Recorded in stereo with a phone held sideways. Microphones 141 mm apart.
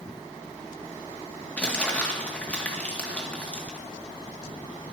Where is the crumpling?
10° left (ahead or behind), 2 m.